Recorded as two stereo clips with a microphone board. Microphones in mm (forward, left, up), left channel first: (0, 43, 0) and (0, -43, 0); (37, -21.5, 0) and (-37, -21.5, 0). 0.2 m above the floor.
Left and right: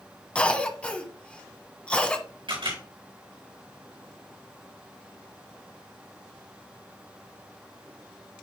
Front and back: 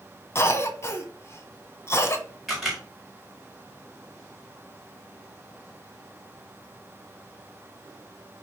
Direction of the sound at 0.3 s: 20° left.